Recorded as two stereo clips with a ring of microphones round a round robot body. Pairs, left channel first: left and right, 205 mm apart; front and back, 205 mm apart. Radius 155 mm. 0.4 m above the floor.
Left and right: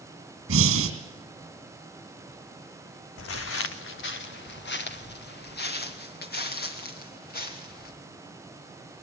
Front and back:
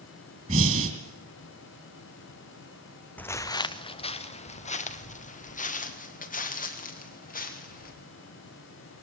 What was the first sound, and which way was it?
Breathing, 115° right.